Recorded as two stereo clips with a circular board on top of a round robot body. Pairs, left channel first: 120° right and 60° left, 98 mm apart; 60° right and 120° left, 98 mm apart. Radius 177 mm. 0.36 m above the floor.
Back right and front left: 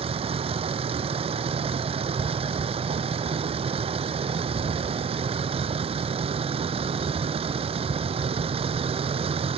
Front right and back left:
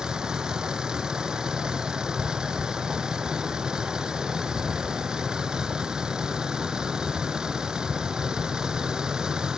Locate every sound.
0.0 s a vehicle: 35° left